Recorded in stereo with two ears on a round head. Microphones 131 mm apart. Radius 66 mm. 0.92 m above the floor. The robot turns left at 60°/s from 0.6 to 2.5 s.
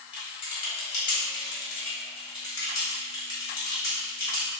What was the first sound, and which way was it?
Typing on a keyboard, 35° left (ahead or behind).